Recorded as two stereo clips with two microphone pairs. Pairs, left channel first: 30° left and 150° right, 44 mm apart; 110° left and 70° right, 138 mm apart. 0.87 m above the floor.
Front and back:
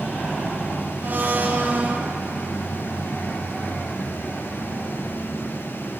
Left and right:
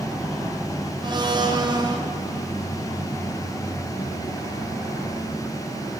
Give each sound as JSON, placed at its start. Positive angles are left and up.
{"t": 1.0, "sound": "a blender", "azimuth_deg": -115, "distance_m": 0.9}